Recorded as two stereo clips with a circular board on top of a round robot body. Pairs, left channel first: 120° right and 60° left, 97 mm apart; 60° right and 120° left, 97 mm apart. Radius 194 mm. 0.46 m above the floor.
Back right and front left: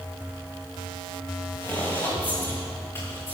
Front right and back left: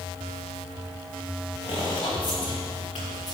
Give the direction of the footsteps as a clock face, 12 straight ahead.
2 o'clock.